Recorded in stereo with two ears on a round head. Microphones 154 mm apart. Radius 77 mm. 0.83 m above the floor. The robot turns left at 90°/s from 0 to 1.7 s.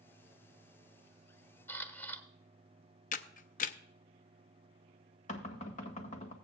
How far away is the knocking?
About 1.6 m.